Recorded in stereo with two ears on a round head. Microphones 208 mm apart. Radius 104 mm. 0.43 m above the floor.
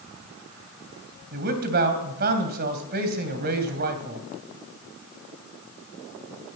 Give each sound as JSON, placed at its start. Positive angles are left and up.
{"t": 1.3, "sound": "a man speaking", "side_deg": -45, "distance_m": 3.0}